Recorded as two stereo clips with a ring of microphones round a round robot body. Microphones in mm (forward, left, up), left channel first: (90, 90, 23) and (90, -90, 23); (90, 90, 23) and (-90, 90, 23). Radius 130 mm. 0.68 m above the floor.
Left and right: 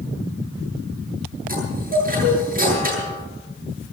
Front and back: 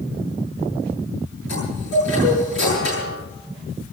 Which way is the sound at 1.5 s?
50° right.